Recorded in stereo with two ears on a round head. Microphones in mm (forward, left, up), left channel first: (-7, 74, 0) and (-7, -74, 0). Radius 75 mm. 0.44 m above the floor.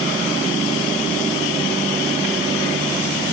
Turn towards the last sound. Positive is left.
No sound to turn to.